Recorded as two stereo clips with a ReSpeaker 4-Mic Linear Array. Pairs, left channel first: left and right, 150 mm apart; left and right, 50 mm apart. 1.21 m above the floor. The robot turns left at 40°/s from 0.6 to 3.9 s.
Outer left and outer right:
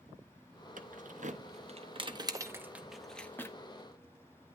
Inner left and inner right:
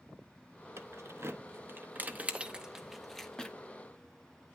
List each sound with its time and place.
0.8 s keys jangling: 60° right (ahead or behind), 0.8 m; by 3.5 s 20° left (ahead or behind), 0.8 m